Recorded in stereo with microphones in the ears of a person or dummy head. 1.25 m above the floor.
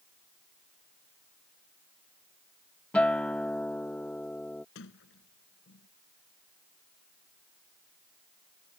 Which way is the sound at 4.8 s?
65° left (ahead or behind).